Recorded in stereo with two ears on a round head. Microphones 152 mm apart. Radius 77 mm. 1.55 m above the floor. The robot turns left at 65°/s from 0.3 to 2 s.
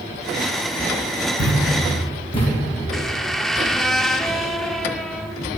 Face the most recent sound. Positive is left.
turn(degrees=0)  # may be behind; listen again after turning